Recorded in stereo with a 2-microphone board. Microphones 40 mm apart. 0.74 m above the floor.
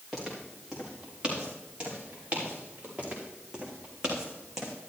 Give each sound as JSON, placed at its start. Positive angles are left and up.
{"t": 0.1, "sound": "footsteps", "side_deg": 0, "distance_m": 4.5}
{"t": 3.0, "sound": "footsteps", "side_deg": -25, "distance_m": 4.0}